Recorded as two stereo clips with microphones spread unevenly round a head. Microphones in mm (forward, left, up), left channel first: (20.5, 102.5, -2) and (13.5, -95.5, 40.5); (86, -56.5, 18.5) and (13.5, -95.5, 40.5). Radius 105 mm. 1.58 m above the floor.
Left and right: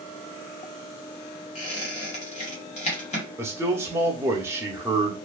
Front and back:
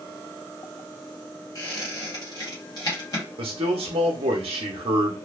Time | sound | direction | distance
1.6 | a squeak | 50° left | 0.9 m
3.4 | a man speaking | 170° right | 0.5 m